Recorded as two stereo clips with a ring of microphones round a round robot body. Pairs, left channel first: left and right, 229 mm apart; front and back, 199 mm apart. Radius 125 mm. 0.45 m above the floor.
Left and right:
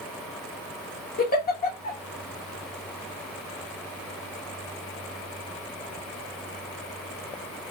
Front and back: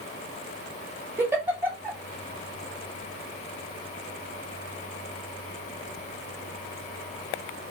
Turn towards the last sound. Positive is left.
turn(degrees=105)